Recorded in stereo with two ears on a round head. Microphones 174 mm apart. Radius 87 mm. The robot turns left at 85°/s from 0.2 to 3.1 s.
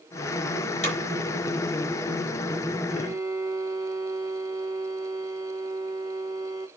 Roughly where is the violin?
Centre.